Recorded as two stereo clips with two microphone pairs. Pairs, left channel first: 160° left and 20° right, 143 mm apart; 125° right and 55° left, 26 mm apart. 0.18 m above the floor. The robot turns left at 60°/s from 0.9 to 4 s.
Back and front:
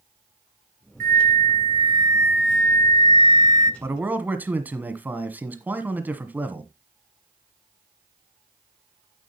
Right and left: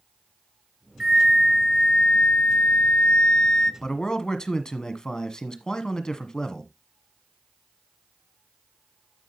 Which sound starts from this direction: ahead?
A flute, at 1.0 s.